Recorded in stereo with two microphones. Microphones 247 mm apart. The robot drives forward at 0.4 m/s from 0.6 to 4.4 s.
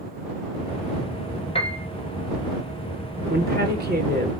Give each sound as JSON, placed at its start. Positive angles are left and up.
{"t": 1.6, "sound": "a piano", "side_deg": 25, "distance_m": 0.9}
{"t": 3.3, "sound": "a woman speaking", "side_deg": -40, "distance_m": 1.9}